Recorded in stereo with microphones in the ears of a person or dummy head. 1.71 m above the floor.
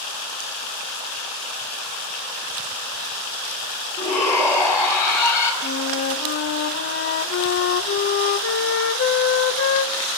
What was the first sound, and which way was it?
A shout, 15° left (ahead or behind).